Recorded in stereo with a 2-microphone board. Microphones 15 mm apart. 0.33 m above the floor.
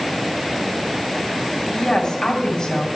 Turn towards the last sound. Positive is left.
turn(degrees=50)  # may be behind; listen again after turning